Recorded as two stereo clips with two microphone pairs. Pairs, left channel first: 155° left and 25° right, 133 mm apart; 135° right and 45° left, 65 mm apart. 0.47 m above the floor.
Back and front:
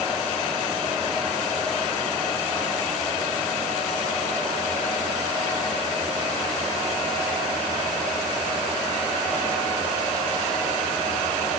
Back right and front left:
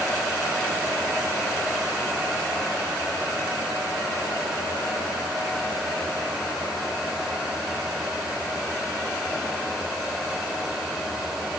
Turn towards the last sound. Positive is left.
No sound to turn to.